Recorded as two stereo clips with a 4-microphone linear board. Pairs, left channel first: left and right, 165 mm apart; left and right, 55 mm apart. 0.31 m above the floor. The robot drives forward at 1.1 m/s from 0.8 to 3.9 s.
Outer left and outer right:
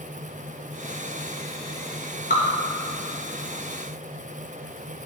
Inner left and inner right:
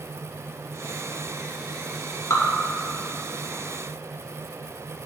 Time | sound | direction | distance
2.3 | dripping | 65° left (ahead or behind) | 2 m